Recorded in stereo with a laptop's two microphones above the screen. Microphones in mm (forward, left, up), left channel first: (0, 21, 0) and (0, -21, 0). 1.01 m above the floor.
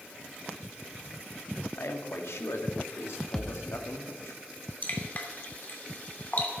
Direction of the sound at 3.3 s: 15° left (ahead or behind).